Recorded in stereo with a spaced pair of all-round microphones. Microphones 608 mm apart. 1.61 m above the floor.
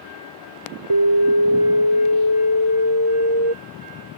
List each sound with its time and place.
0.9 s an alarm: 45° right (ahead or behind)